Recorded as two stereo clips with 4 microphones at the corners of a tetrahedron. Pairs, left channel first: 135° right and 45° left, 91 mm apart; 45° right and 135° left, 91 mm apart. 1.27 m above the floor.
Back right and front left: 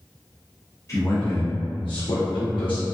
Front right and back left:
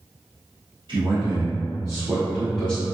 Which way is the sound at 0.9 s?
165° left.